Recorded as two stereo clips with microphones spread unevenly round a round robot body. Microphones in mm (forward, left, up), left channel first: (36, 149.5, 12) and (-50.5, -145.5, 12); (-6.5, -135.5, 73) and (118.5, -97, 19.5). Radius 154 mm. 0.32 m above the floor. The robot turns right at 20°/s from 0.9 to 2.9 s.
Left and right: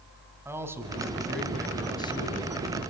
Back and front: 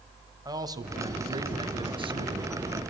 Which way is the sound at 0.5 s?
25° right.